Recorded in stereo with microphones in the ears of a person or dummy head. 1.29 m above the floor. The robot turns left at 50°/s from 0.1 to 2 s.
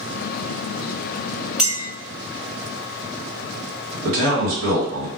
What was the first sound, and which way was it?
A clink, 5° right (ahead or behind).